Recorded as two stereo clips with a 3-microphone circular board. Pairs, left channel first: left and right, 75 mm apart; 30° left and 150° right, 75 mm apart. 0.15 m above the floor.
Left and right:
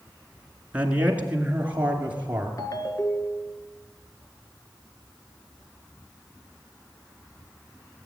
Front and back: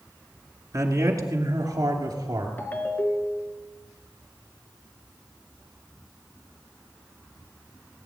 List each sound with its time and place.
0.7 s a man speaking: 160° right, 2 m; by 2.5 s 155° right, 3 m
2.6 s a ringtone: 90° left, 1.4 m